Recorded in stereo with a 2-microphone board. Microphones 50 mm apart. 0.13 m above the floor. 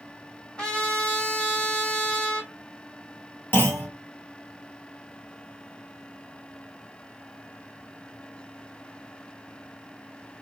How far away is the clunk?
About 1.4 m.